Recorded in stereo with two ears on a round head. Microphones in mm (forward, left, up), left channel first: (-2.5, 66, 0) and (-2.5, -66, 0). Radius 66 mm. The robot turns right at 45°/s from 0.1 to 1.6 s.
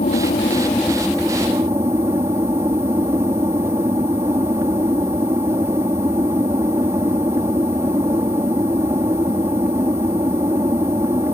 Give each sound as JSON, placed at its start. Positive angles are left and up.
{"t": 0.0, "sound": "an aircraft", "azimuth_deg": 130}